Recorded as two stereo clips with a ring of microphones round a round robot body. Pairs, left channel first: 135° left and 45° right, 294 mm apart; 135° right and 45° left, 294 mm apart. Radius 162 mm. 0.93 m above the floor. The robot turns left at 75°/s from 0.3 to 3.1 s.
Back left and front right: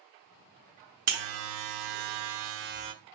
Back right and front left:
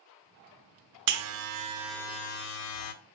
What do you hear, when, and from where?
1.1 s a buzzer: 20° left, 1.0 m; by 2.9 s 120° right, 1.0 m